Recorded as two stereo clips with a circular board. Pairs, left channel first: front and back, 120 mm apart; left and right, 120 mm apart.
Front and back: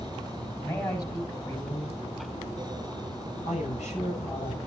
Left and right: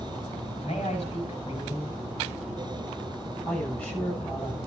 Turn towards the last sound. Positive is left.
turn(degrees=10)